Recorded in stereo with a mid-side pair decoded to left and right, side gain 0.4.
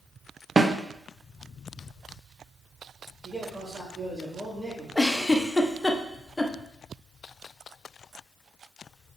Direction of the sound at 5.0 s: 20° left.